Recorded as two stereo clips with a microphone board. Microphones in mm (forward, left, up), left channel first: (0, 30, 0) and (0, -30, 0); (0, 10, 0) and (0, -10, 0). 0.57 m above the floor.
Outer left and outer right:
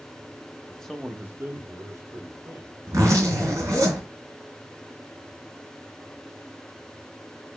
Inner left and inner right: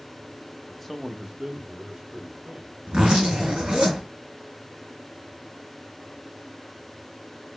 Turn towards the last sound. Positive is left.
turn(degrees=-70)  # may be behind; listen again after turning